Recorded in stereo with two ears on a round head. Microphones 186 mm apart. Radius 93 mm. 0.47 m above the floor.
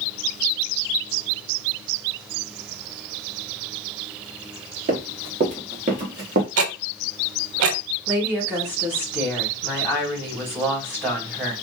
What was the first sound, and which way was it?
Running footsteps, 35° right (ahead or behind).